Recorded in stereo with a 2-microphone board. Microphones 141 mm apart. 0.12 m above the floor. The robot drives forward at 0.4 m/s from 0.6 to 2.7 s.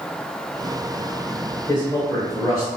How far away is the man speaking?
About 1.5 m.